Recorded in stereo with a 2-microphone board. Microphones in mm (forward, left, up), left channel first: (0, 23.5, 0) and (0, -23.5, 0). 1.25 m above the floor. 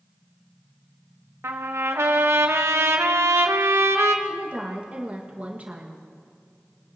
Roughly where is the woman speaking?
Right.